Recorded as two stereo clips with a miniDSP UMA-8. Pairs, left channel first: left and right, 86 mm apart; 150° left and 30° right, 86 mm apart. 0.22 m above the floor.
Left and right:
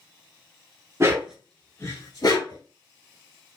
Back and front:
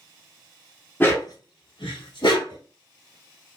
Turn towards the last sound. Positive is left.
turn(degrees=125)